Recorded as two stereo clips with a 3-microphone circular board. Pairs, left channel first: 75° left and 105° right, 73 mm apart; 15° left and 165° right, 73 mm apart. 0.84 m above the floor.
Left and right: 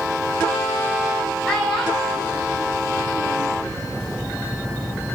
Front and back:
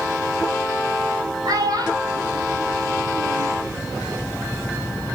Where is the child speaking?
165° left, 5 m; by 3.5 s straight behind, 8 m.